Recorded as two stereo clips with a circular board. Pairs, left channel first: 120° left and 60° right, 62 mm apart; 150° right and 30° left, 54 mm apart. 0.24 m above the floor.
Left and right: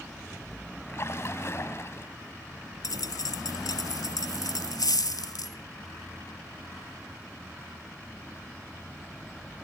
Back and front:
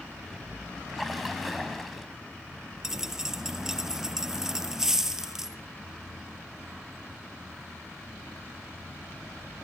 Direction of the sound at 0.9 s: 120° left.